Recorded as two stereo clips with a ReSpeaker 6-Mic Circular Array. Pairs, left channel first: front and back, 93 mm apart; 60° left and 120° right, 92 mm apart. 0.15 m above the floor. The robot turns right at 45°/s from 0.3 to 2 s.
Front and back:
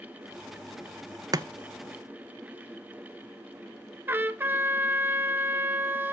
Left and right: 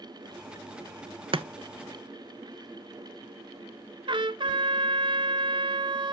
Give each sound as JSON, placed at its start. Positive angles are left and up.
{"t": 1.3, "sound": "chopping", "azimuth_deg": -135, "distance_m": 0.5}
{"t": 4.1, "sound": "a trumpet", "azimuth_deg": -115, "distance_m": 0.6}